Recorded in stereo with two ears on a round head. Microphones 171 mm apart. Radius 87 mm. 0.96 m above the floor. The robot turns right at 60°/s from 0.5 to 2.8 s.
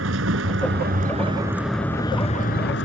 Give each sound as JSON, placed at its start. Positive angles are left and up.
{"t": 0.0, "sound": "a vehicle", "azimuth_deg": -75}